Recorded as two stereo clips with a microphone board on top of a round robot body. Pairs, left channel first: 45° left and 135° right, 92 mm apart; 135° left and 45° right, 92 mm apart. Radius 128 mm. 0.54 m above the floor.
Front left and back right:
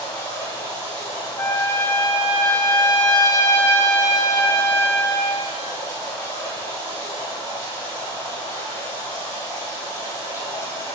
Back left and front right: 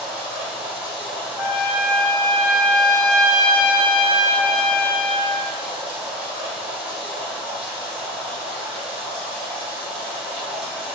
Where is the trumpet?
10° right, 1.5 m.